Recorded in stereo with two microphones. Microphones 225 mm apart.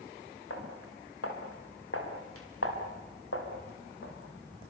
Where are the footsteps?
85° left, 7 m; by 4.7 s 65° left (ahead or behind), 6.5 m.